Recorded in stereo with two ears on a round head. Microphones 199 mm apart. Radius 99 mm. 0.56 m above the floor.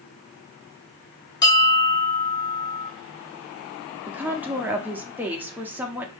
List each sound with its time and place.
1.4 s a bell: 20° left (ahead or behind), 0.8 m
4.1 s a woman speaking: 10° right (ahead or behind), 0.9 m